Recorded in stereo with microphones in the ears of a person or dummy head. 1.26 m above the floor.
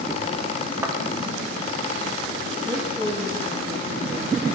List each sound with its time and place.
0.8 s a thud: 15° right (ahead or behind), 1.0 m
2.6 s a woman speaking: 15° right (ahead or behind), 1.7 m